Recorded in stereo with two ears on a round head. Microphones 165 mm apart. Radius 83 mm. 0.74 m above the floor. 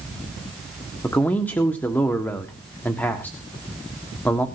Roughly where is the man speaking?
Centre.